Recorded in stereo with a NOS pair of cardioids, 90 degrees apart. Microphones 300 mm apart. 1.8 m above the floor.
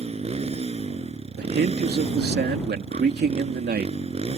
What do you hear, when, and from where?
0.0 s a motorcycle: 20° right
1.4 s a man speaking: 35° right